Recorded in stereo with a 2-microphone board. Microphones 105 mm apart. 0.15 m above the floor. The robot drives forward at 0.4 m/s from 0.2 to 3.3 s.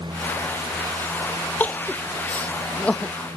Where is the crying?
15° left (ahead or behind); by 3.1 s 10° left (ahead or behind).